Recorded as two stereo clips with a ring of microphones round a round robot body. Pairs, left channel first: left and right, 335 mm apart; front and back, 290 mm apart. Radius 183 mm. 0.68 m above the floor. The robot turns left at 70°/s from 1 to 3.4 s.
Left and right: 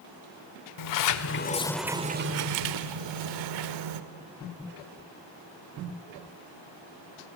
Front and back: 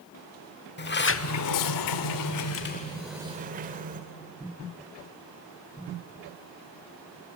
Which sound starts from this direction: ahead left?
A sliding door, at 0.8 s.